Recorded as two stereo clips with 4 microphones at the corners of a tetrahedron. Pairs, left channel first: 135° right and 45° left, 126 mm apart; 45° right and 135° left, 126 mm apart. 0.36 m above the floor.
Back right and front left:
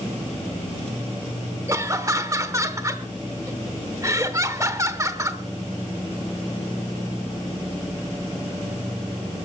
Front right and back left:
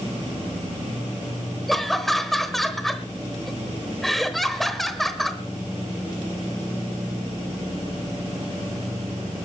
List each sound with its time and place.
1.7 s laughter: 40° left, 0.9 m